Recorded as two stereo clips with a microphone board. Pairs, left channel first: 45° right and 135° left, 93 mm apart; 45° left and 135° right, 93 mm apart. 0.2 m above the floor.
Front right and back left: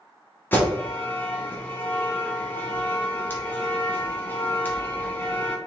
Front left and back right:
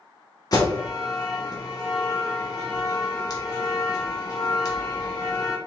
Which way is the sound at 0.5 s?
15° left.